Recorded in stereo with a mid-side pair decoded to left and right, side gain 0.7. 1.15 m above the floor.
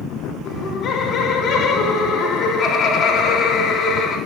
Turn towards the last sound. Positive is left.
turn(degrees=30)